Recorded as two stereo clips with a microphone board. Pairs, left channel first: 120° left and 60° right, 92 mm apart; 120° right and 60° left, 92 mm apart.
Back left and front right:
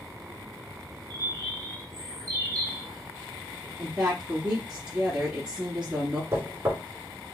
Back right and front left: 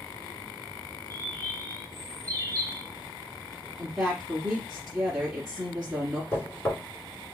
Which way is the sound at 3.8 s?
5° right.